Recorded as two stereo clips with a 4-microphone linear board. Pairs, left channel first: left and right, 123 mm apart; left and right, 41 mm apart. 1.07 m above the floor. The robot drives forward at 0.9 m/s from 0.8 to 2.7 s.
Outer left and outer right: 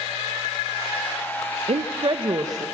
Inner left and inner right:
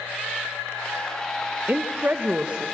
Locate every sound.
1.7 s a woman speaking: 60° right (ahead or behind), 0.6 m; by 2.7 s 30° right (ahead or behind), 1.1 m